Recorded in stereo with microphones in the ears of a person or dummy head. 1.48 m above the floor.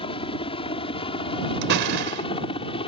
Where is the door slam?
60° right (ahead or behind).